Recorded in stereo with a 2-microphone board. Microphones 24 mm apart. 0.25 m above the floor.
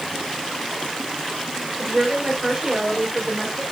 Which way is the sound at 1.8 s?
35° right (ahead or behind).